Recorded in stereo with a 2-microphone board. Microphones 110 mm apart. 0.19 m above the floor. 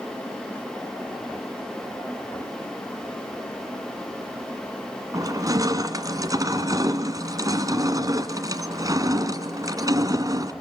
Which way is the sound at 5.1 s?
35° right (ahead or behind).